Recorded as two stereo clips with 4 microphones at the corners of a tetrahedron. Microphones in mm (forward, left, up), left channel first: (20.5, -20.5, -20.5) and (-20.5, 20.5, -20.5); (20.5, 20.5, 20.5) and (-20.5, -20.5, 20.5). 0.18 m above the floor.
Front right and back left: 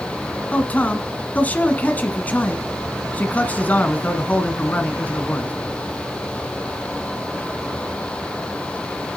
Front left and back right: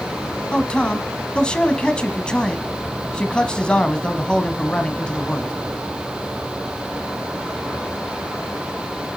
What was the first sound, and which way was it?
A man speaking, 15° right.